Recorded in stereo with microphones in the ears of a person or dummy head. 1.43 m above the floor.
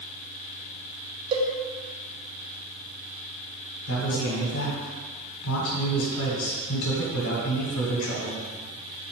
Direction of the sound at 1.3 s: 30° right (ahead or behind).